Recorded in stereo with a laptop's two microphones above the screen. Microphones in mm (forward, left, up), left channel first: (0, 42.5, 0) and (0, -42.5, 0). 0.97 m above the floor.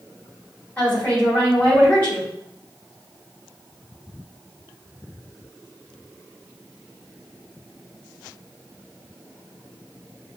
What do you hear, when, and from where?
0.8 s a woman speaking: 20° left (ahead or behind), 2.5 m